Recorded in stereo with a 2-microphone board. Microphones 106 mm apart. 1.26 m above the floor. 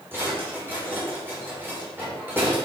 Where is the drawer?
20° right (ahead or behind), 3 m.